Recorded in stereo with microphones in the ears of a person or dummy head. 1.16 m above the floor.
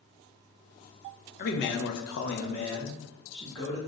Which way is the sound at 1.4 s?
50° left (ahead or behind).